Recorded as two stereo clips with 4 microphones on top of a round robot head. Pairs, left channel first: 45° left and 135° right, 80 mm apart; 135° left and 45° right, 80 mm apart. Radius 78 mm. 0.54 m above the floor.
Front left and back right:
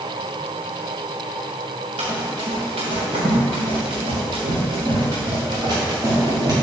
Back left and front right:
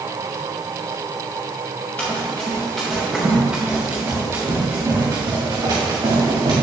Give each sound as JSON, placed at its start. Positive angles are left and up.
{"t": 2.0, "sound": "running footsteps", "azimuth_deg": -155, "distance_m": 4.0}